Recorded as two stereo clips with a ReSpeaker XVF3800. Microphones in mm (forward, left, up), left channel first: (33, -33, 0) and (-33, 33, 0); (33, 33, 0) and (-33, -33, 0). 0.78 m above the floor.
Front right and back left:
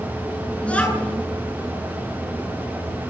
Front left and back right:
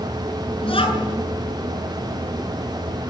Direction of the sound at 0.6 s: 30° left.